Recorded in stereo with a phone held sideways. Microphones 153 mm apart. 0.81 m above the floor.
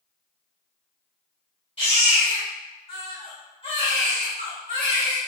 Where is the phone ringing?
No phone ringing in this recording.